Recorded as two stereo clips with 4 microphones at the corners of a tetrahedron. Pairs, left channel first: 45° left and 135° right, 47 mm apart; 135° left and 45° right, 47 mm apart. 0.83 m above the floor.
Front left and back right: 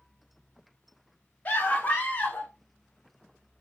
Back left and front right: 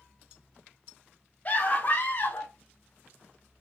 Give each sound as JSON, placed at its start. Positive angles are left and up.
{"t": 1.4, "sound": "a scream", "azimuth_deg": 105, "distance_m": 1.7}